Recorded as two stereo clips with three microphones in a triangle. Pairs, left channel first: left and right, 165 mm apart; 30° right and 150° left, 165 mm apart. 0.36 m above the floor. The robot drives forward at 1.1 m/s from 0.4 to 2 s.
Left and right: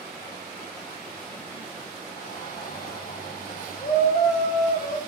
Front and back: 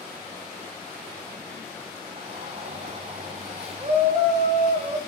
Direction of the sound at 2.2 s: 105° left.